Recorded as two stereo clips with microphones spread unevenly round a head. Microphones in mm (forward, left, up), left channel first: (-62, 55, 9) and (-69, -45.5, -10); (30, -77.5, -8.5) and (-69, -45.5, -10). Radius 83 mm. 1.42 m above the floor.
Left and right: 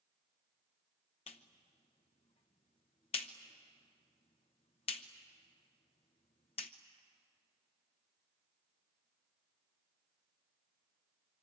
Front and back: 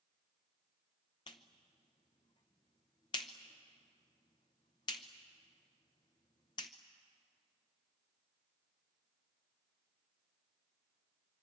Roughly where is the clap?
Ahead left.